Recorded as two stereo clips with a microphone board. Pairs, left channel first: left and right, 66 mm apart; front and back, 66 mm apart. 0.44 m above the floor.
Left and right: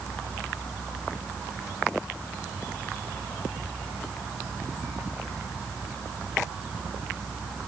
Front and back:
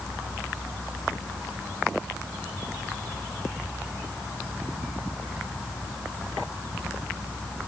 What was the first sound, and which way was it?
Only background noise.